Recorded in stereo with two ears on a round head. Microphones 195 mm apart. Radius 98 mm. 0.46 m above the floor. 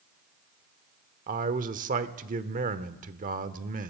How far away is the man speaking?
About 1.1 m.